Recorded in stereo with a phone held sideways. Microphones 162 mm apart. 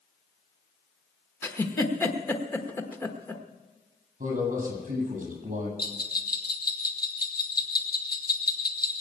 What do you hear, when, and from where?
1.4 s a giggle: 15° left (ahead or behind), 1.2 m
4.2 s a man speaking: 50° right (ahead or behind), 8.5 m
5.8 s a bell: 65° left (ahead or behind), 1.7 m